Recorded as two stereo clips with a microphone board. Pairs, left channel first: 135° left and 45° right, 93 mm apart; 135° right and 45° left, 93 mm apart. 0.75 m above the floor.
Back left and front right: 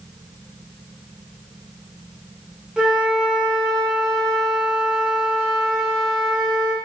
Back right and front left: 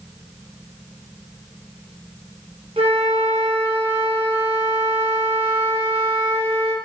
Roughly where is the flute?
Ahead left.